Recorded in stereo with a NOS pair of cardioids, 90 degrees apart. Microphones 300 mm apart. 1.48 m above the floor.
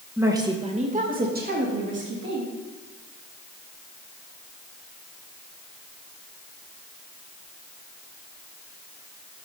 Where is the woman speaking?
5° right, 1.7 m; by 2.5 s 45° right, 3.5 m.